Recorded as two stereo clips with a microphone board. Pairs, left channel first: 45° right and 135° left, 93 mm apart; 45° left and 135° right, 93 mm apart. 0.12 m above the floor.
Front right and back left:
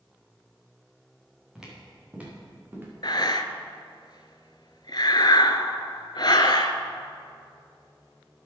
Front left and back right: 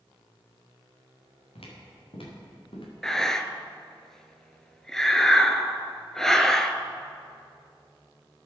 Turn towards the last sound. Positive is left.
turn(degrees=-40)